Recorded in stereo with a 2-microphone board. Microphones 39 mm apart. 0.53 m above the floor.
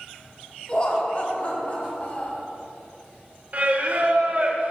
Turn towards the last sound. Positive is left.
turn(degrees=-45)  # may be behind; listen again after turning